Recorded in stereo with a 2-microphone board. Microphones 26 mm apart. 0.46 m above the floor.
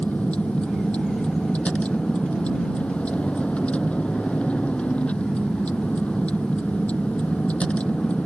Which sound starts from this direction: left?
A vehicle, at 0.0 s.